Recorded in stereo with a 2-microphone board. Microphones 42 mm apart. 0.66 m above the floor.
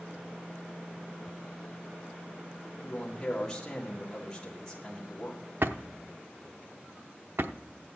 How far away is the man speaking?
About 1.7 m.